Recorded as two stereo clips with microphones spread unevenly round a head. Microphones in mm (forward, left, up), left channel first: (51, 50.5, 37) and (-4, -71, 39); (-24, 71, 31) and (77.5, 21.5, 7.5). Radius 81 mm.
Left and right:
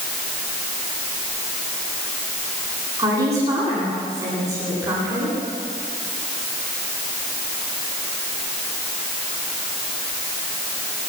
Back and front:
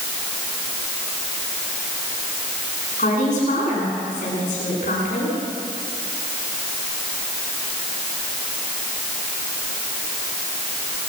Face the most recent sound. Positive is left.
turn(degrees=175)